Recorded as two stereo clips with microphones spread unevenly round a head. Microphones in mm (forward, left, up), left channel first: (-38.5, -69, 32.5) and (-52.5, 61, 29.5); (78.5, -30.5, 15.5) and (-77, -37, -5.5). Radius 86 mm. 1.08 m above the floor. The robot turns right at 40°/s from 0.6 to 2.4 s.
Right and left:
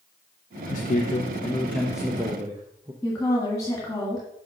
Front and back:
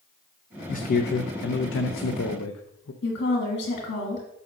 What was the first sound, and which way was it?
A man speaking, 40° right.